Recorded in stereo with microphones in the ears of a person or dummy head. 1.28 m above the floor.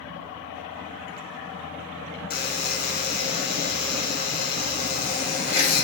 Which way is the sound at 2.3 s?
40° left (ahead or behind).